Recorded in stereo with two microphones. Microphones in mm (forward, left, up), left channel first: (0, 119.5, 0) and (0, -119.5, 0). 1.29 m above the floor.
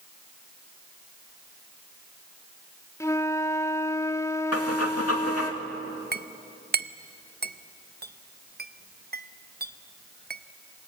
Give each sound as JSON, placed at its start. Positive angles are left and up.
{"t": 3.0, "sound": "a flute", "side_deg": 10, "distance_m": 0.6}
{"t": 4.5, "sound": "breathing", "side_deg": 80, "distance_m": 2.5}
{"t": 6.1, "sound": "a clink", "side_deg": -40, "distance_m": 0.6}